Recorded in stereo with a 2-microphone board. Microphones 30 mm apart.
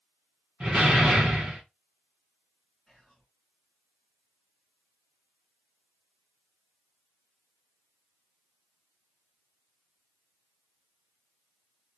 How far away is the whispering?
About 1.8 m.